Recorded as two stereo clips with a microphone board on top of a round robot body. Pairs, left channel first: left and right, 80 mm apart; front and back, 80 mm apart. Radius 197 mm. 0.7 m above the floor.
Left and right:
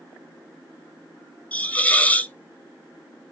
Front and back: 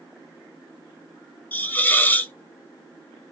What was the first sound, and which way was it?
A hiss, 40° left.